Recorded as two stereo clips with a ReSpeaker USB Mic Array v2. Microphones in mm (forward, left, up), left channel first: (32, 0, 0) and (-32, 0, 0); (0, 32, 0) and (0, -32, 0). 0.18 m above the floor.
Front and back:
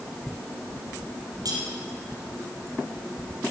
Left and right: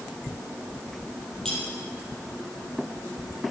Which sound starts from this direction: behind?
Cutlery clinking, at 1.4 s.